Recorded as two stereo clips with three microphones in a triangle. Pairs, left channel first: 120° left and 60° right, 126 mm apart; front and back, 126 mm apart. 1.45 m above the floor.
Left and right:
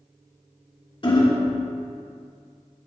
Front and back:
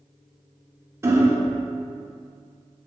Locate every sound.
1.0 s hammering: 125° left, 1.3 m